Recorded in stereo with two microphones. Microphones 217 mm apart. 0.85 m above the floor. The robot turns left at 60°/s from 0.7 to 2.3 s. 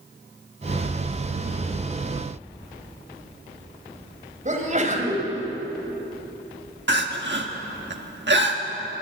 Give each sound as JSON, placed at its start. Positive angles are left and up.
{"t": 4.5, "sound": "a sneeze", "side_deg": -35, "distance_m": 4.0}
{"t": 6.9, "sound": "crying", "side_deg": -60, "distance_m": 1.5}